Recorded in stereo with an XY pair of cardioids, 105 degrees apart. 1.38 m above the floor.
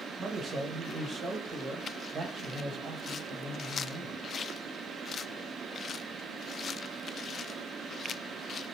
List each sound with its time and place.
0.2 s a man speaking: 40° right, 1.3 m